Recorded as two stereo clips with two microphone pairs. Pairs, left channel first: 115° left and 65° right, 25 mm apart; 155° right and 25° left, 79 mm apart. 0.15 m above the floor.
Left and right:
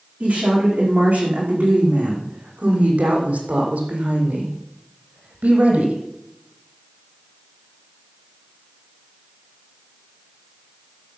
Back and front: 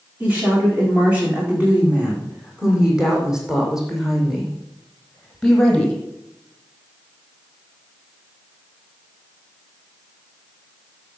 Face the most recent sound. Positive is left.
turn(degrees=-75)